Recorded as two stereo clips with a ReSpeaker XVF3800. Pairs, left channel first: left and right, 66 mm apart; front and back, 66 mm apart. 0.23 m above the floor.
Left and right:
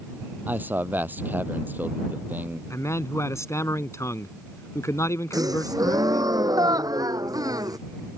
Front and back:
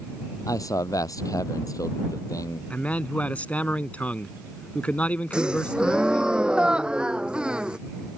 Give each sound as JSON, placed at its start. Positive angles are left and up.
{"t": 0.5, "sound": "a man speaking", "azimuth_deg": -25}
{"t": 2.7, "sound": "a man speaking", "azimuth_deg": 65}
{"t": 5.3, "sound": "a gasp", "azimuth_deg": -105}